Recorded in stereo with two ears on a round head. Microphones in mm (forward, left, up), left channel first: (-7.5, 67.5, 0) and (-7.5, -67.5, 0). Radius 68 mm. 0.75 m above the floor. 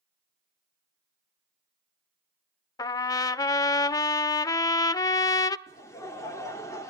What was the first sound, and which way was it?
A trumpet, 25° left (ahead or behind).